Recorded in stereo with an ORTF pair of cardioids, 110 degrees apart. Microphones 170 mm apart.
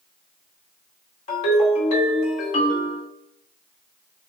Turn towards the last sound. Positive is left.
turn(degrees=50)